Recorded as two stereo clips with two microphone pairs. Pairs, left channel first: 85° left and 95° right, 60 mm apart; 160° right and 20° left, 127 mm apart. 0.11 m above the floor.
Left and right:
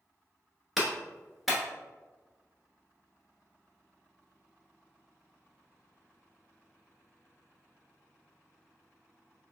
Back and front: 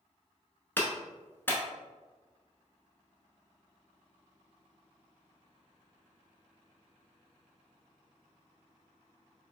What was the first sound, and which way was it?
A clap, 170° right.